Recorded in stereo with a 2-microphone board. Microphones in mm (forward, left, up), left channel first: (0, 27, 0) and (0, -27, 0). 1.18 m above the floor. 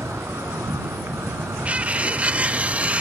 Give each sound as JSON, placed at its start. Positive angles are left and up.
{"t": 0.0, "sound": "an insect", "side_deg": -80}
{"t": 1.6, "sound": "cutlery clinking", "side_deg": -25}